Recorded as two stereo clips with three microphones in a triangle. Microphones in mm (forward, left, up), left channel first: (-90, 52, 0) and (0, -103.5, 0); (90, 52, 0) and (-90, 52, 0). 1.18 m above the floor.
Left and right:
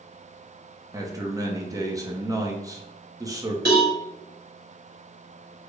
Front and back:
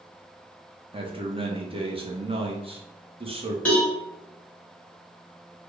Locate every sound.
0.9 s a man speaking: 130° right, 0.7 m
3.6 s a cowbell: 85° right, 1.4 m